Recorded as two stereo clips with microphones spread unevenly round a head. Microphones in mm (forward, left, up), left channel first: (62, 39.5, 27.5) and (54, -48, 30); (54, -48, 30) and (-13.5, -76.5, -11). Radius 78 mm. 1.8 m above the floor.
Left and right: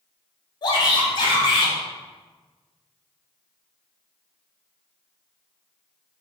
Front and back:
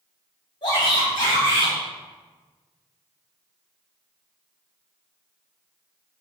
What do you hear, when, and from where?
0.6 s a shout: 50° left, 2.5 m